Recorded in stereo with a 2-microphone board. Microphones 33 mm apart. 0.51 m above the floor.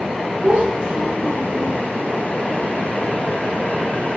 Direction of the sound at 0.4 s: 45° right (ahead or behind).